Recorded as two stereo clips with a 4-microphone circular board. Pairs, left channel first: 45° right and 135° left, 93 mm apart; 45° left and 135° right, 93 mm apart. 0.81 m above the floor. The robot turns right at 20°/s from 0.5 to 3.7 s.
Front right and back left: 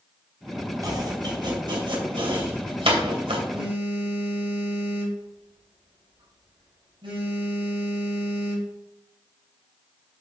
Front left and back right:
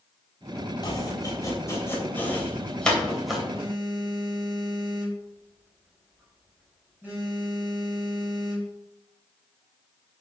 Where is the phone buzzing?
150° left, 4.5 m; by 8.7 s 155° left, 4.5 m.